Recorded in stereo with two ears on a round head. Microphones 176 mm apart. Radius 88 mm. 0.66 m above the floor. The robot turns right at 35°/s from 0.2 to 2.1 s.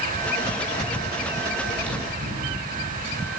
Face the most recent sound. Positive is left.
turn(degrees=-65)  # may be behind; listen again after turning